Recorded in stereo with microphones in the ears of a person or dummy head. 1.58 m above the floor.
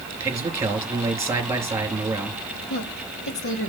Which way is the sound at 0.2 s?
15° right (ahead or behind).